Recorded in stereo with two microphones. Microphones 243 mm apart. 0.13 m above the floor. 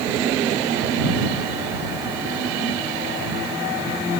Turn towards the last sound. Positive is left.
No sound to turn to.